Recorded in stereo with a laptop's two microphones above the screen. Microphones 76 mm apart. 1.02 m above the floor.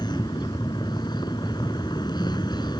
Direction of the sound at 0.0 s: 75° left (ahead or behind).